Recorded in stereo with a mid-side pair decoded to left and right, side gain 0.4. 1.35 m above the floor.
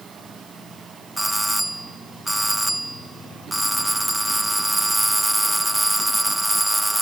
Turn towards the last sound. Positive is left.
turn(degrees=-10)